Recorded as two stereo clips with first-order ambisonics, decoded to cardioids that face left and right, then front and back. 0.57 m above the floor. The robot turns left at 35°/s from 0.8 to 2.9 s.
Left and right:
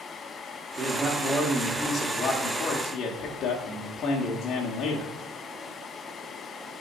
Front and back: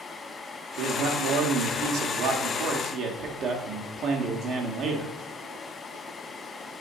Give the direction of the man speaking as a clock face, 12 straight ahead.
5 o'clock.